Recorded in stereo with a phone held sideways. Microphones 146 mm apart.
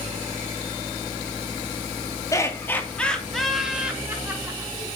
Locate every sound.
2.3 s laughter: 20° left (ahead or behind), 3 m; by 5.0 s 20° right (ahead or behind), 5 m